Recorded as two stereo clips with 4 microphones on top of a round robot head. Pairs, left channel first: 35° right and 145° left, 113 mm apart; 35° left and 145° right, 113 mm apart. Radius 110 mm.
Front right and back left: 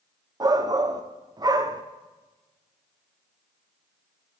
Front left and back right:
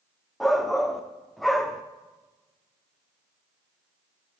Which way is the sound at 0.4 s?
125° left.